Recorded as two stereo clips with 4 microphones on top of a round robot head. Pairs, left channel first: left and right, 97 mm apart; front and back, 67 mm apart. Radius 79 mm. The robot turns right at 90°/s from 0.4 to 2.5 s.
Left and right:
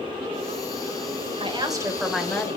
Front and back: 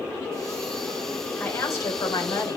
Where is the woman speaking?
70° right, 2.5 m; by 2.6 s 30° left, 2.5 m.